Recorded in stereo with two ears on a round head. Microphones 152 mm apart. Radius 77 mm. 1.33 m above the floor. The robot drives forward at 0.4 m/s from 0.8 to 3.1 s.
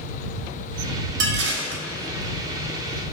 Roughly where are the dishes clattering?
Right.